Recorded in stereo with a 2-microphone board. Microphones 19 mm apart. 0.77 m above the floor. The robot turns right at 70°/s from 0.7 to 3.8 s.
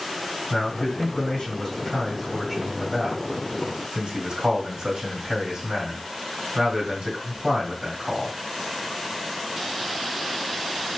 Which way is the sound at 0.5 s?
85° left.